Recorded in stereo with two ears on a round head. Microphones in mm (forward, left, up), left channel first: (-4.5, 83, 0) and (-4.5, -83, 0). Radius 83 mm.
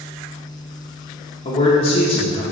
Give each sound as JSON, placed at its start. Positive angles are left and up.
{"t": 1.4, "sound": "a man speaking", "side_deg": 35, "distance_m": 0.9}